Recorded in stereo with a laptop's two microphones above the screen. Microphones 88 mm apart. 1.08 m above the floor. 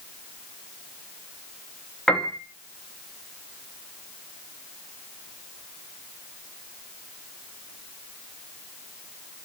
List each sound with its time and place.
2.1 s a piano: 5° left (ahead or behind), 2.5 m